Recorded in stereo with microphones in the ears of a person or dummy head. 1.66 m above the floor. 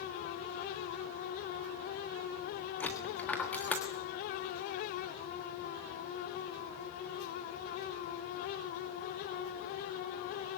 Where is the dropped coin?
5° left (ahead or behind), 1.4 m.